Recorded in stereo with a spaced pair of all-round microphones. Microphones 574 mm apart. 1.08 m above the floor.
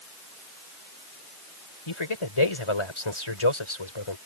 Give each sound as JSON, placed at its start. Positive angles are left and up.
{"t": 1.9, "sound": "a man speaking", "side_deg": 50}